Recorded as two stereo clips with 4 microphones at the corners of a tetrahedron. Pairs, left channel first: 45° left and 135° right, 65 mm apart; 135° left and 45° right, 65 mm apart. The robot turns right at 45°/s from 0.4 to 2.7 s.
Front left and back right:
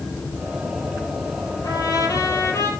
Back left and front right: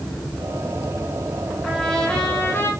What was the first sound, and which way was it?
A trumpet, 45° left.